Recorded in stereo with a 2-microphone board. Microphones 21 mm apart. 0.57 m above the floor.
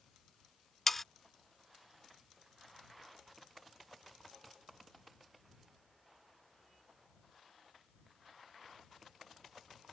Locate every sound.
0.9 s sawing: 15° left (ahead or behind)